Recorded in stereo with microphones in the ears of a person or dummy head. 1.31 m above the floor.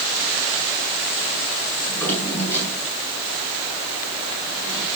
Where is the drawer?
10° left (ahead or behind), 8.5 m.